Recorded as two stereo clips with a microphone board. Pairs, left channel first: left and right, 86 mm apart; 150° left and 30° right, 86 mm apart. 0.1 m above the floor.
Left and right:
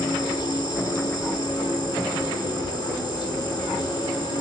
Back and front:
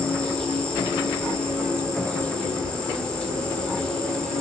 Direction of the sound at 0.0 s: 70° left.